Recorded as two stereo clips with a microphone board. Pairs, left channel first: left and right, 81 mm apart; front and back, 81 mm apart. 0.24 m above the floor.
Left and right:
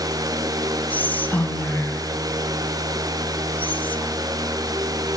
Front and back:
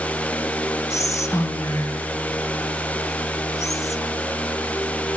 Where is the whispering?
30° left, 1.3 m.